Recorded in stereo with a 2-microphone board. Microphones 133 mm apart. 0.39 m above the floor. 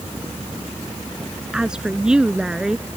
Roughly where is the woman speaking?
Centre.